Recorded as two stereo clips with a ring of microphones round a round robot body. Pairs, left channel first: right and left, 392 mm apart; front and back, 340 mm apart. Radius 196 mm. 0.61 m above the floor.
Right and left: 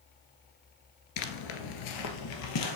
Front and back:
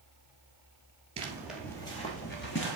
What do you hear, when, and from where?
1.2 s footsteps: 110° right, 0.8 m; by 2.8 s 55° right, 1.3 m